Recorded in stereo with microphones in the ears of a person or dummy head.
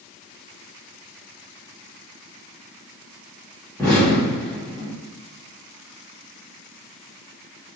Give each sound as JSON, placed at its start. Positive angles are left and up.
{"t": 3.8, "sound": "an explosion", "side_deg": 10, "distance_m": 1.6}